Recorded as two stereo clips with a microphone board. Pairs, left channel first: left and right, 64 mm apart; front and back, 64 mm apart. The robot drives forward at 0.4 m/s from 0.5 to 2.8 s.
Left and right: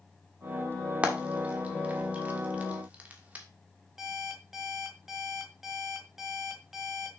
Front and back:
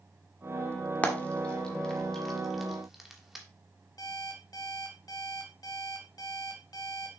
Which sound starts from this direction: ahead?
An alarm clock, at 4.0 s.